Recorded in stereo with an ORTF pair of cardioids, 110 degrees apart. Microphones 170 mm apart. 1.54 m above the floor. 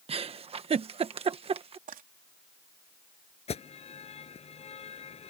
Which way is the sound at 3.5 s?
35° left.